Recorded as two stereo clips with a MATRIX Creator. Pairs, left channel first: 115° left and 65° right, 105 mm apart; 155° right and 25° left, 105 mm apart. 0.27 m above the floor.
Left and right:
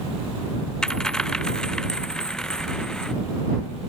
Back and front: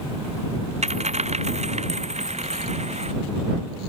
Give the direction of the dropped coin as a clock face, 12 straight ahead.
11 o'clock.